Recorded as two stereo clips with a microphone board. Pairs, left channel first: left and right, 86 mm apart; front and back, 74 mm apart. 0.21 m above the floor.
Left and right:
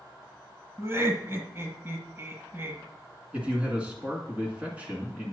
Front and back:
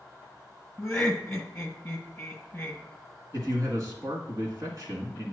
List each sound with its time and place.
0.8 s laughter: 80° right, 1.5 m
3.3 s a man speaking: 160° right, 2 m